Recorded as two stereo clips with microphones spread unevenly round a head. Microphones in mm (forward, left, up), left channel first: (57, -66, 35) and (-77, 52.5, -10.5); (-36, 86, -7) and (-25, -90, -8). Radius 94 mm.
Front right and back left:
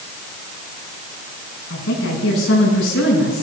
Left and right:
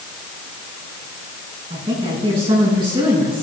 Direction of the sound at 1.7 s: 20° right.